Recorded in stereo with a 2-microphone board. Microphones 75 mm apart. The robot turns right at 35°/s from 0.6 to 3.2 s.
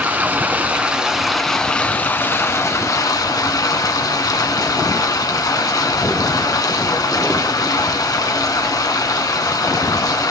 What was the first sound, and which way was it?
Running water, 25° right.